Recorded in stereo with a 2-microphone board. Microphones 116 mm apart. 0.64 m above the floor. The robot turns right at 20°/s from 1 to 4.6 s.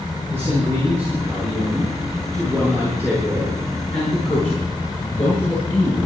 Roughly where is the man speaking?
Ahead.